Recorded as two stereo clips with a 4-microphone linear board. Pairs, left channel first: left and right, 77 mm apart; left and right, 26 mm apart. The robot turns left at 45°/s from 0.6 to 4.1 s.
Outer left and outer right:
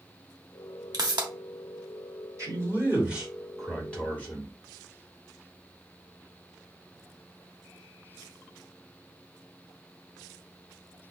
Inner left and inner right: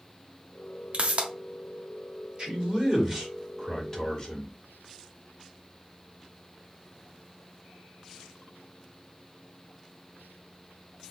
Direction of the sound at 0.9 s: 60° right (ahead or behind).